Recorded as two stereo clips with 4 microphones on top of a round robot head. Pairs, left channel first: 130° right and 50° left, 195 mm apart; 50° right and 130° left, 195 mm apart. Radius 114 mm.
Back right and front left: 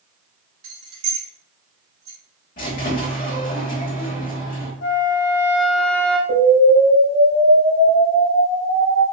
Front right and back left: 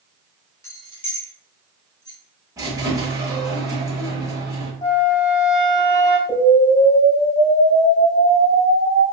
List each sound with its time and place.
0.6 s keys jangling: 25° left, 1.5 m; by 2.2 s 35° left, 2.5 m
2.6 s a squeak: 165° right, 0.9 m
4.8 s a flute: 125° right, 0.7 m
6.3 s an explosion: 30° left, 2.0 m